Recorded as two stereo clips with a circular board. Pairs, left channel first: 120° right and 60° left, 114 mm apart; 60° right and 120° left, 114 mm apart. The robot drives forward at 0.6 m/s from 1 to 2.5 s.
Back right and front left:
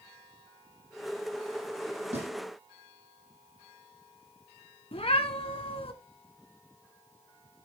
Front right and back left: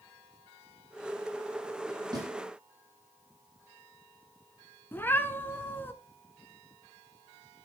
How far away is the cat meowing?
About 1.1 m.